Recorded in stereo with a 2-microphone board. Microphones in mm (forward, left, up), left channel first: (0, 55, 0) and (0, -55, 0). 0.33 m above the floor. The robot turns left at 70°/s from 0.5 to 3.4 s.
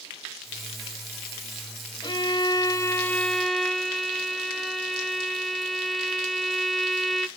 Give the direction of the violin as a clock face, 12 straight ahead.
9 o'clock.